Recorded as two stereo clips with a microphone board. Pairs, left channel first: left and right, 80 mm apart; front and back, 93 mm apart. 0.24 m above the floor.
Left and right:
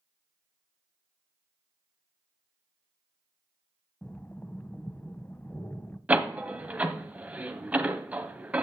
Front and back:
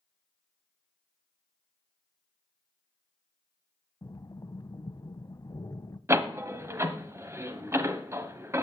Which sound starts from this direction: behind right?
A door slam, at 6.1 s.